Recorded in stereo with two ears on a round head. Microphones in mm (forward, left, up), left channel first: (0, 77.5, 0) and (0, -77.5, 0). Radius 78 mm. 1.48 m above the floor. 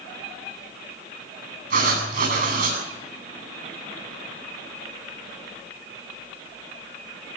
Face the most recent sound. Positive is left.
turn(degrees=-60)  # may be behind; listen again after turning